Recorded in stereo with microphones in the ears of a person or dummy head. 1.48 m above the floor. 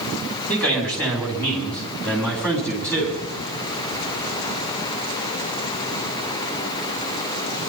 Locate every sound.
0.5 s a man speaking: centre (ahead or behind), 5.5 m